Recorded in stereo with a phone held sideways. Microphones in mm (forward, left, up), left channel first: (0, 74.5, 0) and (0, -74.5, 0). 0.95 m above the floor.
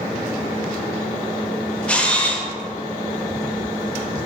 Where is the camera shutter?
10° left (ahead or behind), 0.7 m.